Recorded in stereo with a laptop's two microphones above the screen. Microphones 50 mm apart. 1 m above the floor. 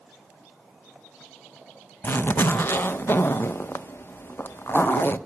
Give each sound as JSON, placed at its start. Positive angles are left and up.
{"t": 2.0, "sound": "a zipper", "side_deg": 45, "distance_m": 0.5}